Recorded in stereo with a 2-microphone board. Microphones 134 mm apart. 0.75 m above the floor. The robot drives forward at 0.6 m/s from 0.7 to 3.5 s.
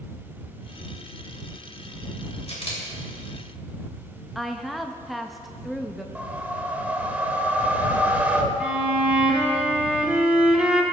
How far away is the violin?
About 1.2 m.